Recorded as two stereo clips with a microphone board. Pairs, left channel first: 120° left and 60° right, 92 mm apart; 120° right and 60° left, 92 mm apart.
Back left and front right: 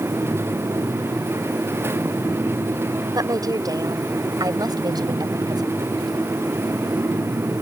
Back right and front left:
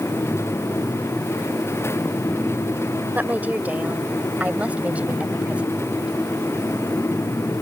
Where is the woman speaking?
10° right; by 6.1 s 20° right.